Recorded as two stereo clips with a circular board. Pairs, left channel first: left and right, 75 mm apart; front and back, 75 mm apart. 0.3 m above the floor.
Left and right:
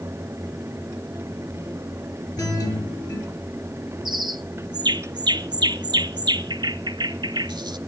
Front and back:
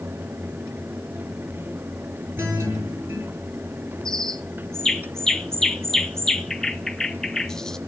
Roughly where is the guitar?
Behind left.